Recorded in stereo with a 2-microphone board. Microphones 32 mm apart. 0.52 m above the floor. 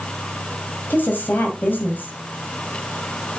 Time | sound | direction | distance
0.9 | a woman speaking | 75° left (ahead or behind) | 2.5 m